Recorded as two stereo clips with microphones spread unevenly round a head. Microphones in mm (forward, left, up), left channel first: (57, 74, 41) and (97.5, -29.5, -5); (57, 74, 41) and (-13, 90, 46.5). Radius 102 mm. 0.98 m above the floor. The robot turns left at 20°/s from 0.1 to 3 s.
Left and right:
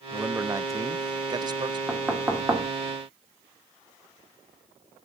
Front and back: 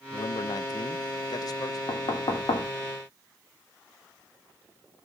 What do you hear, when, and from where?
0.1 s a man speaking: 10° right, 0.5 m; by 1.8 s 45° right, 0.5 m
1.9 s knocking: 5° left, 2.5 m; by 2.7 s 15° right, 2.5 m